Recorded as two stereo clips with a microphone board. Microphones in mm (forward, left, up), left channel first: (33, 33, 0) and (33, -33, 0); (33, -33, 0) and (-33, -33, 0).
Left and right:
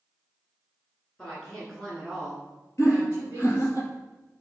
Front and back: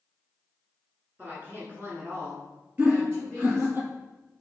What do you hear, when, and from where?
1.2 s a woman speaking: 150° left, 1.5 m; by 3.8 s 140° right, 1.9 m
2.8 s laughter: 130° left, 2 m